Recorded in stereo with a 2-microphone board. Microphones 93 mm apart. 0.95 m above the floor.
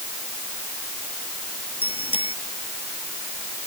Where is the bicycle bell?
80° left.